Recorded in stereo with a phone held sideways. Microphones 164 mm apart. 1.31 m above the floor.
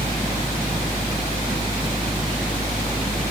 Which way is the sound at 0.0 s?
65° left (ahead or behind).